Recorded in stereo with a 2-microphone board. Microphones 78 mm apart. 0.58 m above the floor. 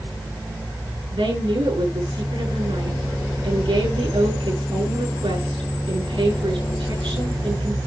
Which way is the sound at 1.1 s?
85° right.